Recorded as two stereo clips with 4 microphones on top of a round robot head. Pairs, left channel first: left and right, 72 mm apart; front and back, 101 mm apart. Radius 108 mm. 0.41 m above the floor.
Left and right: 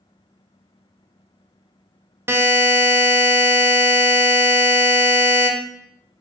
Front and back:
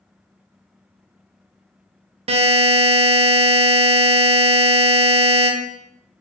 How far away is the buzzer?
About 0.5 m.